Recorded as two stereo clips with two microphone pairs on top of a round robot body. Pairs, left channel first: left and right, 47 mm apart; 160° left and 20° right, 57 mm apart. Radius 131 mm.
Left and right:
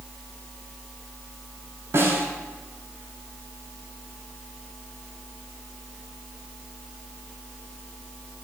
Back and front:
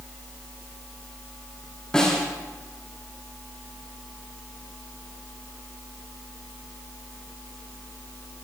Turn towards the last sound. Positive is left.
turn(degrees=-120)